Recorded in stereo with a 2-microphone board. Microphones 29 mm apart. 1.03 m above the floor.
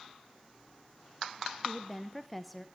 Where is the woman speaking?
Centre (ahead or behind), 0.7 m.